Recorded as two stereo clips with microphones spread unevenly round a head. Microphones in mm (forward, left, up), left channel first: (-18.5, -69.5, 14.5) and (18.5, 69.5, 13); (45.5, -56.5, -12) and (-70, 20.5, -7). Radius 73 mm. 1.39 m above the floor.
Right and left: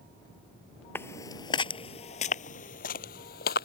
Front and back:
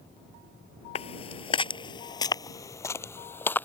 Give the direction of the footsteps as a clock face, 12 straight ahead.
1 o'clock.